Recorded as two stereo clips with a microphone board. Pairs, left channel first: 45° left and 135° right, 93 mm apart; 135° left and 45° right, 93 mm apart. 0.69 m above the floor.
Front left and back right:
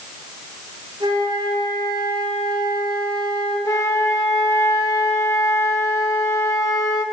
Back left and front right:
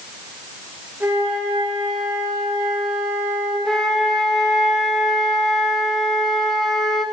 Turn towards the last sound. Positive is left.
turn(degrees=55)